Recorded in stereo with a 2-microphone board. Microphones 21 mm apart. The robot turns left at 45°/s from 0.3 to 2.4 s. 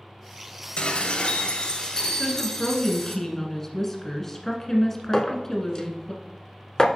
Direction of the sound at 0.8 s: 90° left.